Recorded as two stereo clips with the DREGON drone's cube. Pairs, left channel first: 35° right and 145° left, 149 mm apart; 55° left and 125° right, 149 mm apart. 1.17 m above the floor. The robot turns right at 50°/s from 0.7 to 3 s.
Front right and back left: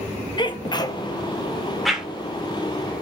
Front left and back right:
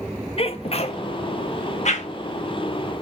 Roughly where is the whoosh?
Ahead left.